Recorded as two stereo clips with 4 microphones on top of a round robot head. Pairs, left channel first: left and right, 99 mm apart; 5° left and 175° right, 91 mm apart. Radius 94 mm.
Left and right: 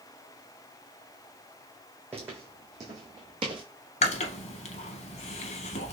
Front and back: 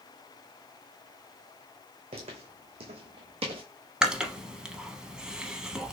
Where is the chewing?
105° left, 0.6 m.